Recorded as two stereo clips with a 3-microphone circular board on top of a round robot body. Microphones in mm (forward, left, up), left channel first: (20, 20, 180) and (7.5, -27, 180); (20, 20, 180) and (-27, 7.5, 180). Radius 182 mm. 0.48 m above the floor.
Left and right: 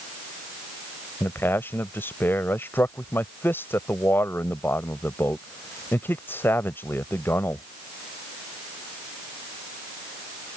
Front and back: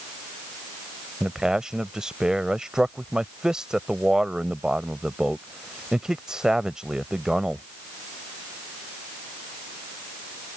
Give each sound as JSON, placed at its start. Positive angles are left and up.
{"t": 1.2, "sound": "a man speaking", "azimuth_deg": 120}